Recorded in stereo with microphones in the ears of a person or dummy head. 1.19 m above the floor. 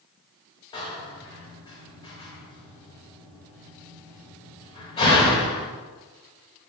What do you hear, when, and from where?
0.7 s a door slam: 25° left (ahead or behind), 1.4 m